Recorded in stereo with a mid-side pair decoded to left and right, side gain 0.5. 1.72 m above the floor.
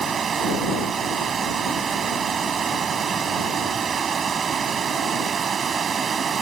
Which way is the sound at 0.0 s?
45° right.